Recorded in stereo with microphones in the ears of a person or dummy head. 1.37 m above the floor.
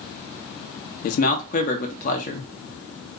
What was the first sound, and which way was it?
A man speaking, 50° left (ahead or behind).